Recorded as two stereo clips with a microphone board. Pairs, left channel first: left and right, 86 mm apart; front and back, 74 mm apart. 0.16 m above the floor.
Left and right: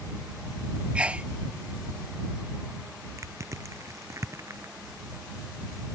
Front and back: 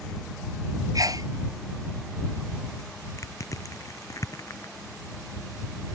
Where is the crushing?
40° right.